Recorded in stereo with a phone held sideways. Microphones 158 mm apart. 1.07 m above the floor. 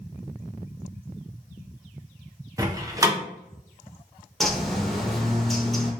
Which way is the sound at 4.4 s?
Centre (ahead or behind).